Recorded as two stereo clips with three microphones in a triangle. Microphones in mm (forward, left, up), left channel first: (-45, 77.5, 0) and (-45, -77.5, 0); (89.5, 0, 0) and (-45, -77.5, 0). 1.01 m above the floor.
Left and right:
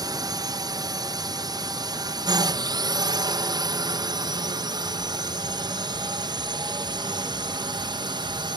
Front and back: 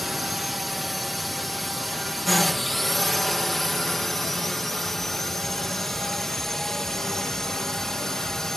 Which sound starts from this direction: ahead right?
A drone, at 0.0 s.